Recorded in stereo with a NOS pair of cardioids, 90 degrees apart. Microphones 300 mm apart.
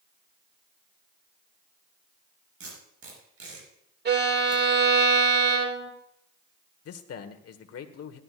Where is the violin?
35° right, 1.9 m.